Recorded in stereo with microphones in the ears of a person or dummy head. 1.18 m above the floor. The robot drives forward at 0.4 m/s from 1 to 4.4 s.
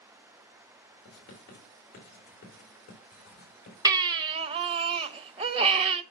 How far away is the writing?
About 3.5 m.